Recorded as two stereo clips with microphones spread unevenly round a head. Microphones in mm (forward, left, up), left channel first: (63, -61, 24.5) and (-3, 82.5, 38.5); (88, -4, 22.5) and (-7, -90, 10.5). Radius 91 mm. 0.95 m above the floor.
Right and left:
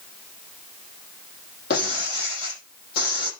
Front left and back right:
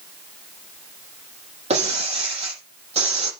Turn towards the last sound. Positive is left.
turn(degrees=-105)